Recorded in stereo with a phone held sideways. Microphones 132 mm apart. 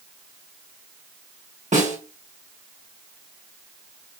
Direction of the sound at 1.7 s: 65° right (ahead or behind).